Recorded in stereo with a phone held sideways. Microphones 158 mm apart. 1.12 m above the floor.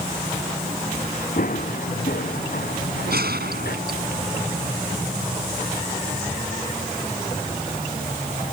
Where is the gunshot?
85° right.